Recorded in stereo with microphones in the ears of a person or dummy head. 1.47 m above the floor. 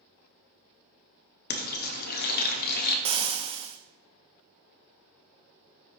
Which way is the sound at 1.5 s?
50° left (ahead or behind).